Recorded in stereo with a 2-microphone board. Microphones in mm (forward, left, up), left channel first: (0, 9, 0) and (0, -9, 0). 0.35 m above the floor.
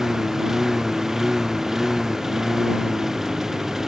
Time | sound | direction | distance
0.0 | a lawn mower | 30° right (ahead or behind) | ?